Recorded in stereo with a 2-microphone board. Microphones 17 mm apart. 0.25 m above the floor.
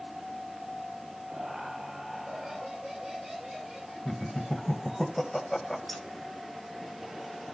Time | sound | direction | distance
1.3 | laughter | 25° right (ahead or behind) | 6.5 m
4.0 | laughter | 15° left (ahead or behind) | 1.4 m
5.9 | keys jangling | 5° left (ahead or behind) | 1.9 m